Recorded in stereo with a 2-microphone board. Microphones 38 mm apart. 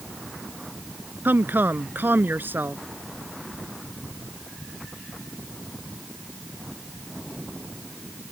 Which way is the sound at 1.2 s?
60° right (ahead or behind).